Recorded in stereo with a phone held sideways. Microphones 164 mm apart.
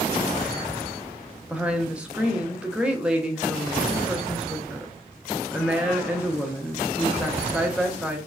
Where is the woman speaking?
5° right (ahead or behind), 0.6 m.